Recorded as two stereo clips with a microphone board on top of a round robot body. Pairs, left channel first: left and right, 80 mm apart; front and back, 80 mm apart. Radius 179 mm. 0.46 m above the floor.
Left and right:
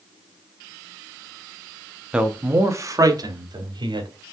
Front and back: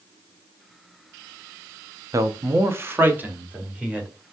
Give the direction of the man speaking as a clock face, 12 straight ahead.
6 o'clock.